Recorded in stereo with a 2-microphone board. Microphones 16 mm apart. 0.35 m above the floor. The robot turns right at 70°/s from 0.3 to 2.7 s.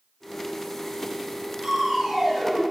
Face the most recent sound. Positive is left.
turn(degrees=5)